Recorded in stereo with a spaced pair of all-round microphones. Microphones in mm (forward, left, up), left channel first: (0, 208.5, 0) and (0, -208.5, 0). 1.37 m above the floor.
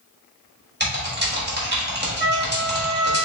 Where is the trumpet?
25° left (ahead or behind), 1.0 m.